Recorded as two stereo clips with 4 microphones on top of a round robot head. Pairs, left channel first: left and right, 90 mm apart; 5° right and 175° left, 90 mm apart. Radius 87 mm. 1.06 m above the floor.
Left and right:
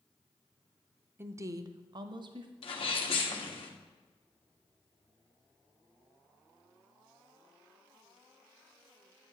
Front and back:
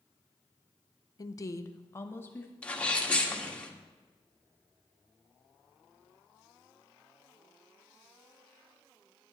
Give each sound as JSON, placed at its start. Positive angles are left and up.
{"t": 1.2, "sound": "a woman speaking", "azimuth_deg": -35, "distance_m": 0.6}
{"t": 2.6, "sound": "a sneeze", "azimuth_deg": 70, "distance_m": 1.8}